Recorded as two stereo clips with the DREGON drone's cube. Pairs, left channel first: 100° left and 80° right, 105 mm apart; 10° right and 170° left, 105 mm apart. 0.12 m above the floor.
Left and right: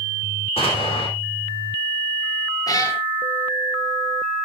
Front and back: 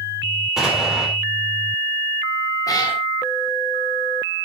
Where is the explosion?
85° left, 4 m.